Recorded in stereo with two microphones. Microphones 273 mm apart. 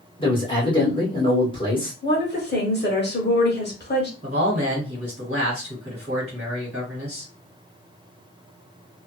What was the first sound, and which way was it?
A man speaking, 20° left (ahead or behind).